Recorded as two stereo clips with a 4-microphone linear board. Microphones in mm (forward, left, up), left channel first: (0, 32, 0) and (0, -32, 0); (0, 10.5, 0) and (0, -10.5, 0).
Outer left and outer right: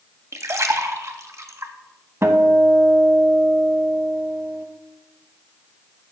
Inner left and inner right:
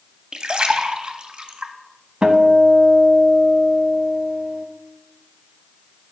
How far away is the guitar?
About 0.6 m.